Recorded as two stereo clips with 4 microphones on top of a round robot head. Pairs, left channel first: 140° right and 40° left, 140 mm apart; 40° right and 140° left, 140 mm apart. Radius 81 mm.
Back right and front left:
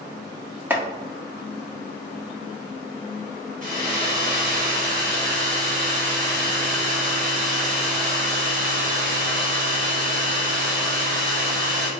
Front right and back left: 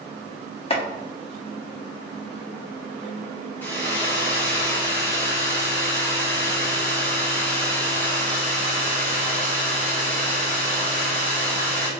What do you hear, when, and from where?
0.7 s chopping: 30° right, 0.9 m
3.6 s a hair dryer: 35° left, 1.3 m